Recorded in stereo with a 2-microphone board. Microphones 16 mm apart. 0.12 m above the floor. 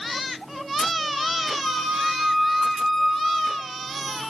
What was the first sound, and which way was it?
A flute, 10° left (ahead or behind).